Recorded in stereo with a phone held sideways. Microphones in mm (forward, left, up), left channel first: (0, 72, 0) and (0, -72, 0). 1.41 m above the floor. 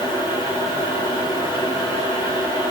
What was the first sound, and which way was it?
A fan, 35° left (ahead or behind).